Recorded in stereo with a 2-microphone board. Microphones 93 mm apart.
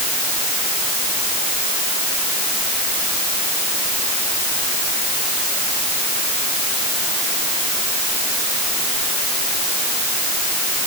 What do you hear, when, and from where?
Only background noise.